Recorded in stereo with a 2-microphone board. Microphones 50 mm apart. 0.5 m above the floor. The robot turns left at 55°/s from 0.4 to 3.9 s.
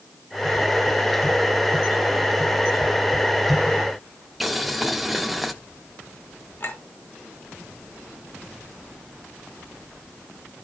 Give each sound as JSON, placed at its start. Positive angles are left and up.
{"t": 4.4, "sound": "boiling", "side_deg": 0, "distance_m": 0.9}
{"t": 6.6, "sound": "a clink", "side_deg": 50, "distance_m": 4.0}